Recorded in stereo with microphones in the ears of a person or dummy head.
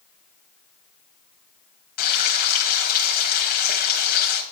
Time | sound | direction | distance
2.0 | frying | 50° left (ahead or behind) | 1.4 m